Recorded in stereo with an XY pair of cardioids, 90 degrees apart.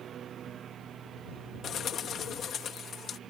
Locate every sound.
0.0 s a lawn mower: 65° right
1.6 s a bird: 65° left